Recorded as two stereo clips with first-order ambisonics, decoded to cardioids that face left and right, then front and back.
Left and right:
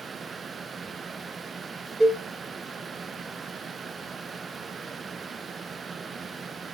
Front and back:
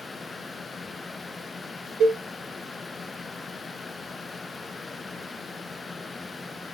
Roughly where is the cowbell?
Behind.